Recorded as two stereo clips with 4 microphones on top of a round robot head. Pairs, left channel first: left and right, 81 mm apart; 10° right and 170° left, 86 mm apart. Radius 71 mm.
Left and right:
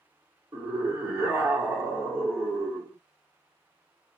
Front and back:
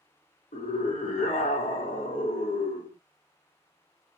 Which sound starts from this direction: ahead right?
A scream, at 0.5 s.